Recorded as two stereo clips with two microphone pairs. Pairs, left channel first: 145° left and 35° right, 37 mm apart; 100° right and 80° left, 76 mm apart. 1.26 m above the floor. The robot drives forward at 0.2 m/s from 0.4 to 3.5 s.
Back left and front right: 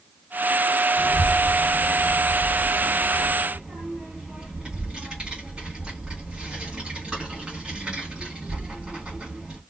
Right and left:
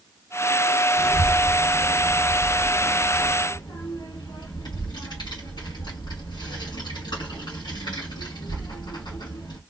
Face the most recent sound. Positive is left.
turn(degrees=-105)